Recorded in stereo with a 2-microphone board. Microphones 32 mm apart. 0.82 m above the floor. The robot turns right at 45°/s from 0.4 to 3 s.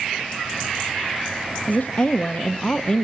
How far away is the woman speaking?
About 0.8 m.